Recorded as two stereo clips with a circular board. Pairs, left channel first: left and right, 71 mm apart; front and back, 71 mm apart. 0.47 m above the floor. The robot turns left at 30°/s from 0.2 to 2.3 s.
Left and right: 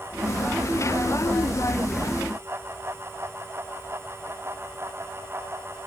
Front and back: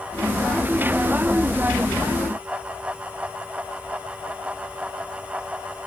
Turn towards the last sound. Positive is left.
No sound to turn to.